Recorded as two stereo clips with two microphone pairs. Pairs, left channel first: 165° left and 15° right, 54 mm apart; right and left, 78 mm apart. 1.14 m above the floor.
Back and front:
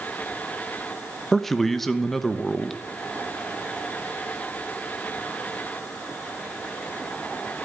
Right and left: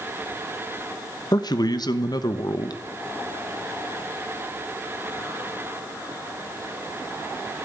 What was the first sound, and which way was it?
A man speaking, 110° right.